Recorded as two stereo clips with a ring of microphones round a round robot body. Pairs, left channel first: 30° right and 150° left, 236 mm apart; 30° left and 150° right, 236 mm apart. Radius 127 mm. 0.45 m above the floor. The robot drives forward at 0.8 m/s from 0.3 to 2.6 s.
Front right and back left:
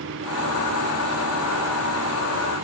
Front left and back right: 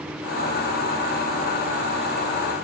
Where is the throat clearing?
No throat clearing in this recording.